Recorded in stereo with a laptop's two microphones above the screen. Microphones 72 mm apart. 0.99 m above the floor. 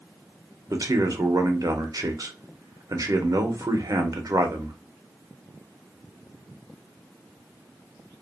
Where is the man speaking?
55° right (ahead or behind), 0.7 m.